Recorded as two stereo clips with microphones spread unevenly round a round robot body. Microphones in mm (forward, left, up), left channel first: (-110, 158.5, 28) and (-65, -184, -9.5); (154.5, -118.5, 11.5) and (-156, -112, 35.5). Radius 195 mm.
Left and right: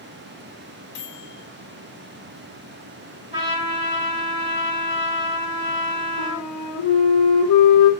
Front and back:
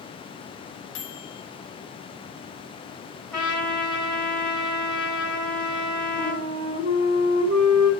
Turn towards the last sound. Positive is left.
turn(degrees=115)